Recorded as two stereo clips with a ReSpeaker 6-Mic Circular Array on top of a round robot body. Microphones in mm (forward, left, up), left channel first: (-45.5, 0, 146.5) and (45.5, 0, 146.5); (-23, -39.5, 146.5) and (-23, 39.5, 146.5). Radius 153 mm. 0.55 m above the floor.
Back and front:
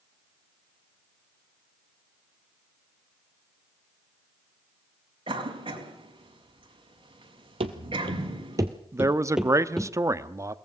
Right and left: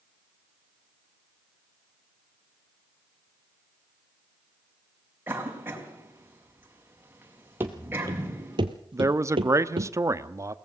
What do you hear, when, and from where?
5.3 s a cough: 25° left, 5 m
7.6 s running footsteps: 25° left, 1.1 m; by 9.9 s 95° left, 1.2 m
8.9 s a man speaking: 50° left, 1.2 m